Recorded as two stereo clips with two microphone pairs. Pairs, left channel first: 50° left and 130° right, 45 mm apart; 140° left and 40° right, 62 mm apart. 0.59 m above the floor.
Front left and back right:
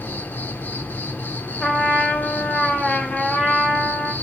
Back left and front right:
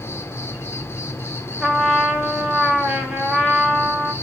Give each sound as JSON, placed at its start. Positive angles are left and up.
{"t": 0.0, "sound": "an insect", "azimuth_deg": 90, "distance_m": 0.7}
{"t": 1.6, "sound": "a trumpet", "azimuth_deg": 30, "distance_m": 1.3}